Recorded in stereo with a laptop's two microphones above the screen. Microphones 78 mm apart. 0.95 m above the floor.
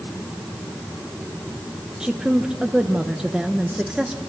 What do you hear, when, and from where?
2.0 s a woman speaking: 10° right (ahead or behind), 0.8 m